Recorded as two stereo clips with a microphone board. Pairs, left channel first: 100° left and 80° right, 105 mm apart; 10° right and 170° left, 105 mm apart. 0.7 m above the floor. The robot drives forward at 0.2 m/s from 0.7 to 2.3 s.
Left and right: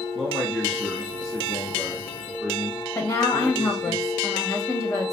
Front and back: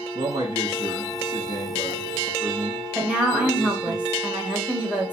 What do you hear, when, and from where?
0.1 s a man speaking: 165° right, 0.7 m; by 4.0 s 170° right, 0.9 m
3.0 s a woman speaking: 105° left, 0.9 m